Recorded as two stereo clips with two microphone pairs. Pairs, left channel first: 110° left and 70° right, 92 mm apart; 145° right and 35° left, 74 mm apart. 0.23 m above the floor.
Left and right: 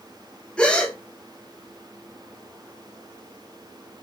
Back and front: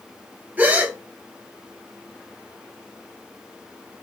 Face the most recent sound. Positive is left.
turn(degrees=50)